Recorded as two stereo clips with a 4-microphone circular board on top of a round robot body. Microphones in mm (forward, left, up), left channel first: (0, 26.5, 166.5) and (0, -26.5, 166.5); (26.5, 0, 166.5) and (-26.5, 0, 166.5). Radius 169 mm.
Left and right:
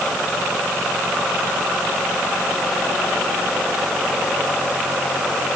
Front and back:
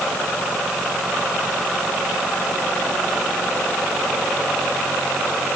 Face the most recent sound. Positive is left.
No sound to turn to.